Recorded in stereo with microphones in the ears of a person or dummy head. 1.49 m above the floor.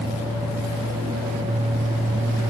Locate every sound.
Only background noise.